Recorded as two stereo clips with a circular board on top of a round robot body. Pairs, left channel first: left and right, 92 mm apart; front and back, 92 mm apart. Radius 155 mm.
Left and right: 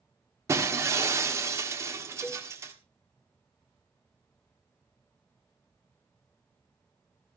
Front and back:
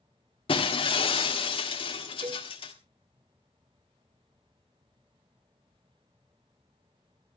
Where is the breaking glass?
30° right, 1.5 m.